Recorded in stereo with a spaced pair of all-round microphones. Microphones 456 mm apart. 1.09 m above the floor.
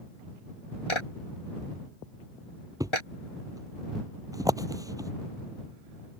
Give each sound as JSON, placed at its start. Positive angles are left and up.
{"t": 0.9, "sound": "a clap", "side_deg": 90}
{"t": 2.8, "sound": "a thud", "side_deg": -5}